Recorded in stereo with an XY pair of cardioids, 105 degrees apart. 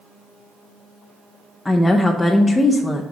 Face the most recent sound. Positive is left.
turn(degrees=20)